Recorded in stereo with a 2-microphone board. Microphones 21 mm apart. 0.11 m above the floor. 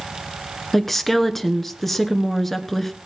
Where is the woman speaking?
5° left (ahead or behind), 1.2 m.